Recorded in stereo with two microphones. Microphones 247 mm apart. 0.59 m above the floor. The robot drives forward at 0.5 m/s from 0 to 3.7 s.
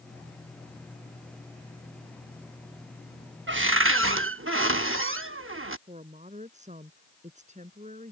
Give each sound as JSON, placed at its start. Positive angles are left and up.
{"t": 3.5, "sound": "a cupboard door", "side_deg": -50}
{"t": 5.9, "sound": "a woman speaking", "side_deg": -30}